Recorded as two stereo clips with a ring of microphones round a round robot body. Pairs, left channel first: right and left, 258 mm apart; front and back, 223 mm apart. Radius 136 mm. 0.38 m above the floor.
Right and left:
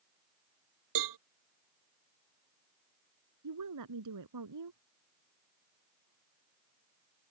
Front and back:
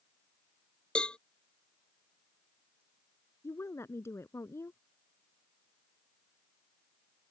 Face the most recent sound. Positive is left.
turn(degrees=80)